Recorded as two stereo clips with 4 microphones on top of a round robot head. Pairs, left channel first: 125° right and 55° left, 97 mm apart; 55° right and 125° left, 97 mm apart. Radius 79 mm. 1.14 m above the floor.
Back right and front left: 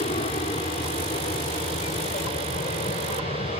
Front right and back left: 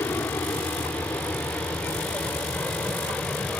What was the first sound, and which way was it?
An aircraft, 115° right.